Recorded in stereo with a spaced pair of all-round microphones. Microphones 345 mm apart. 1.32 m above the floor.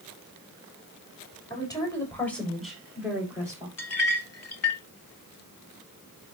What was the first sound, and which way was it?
A woman speaking, 10° left (ahead or behind).